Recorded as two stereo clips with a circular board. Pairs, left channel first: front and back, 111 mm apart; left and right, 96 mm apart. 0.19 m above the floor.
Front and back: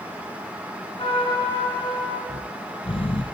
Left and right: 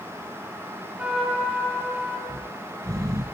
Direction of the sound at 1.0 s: 15° right.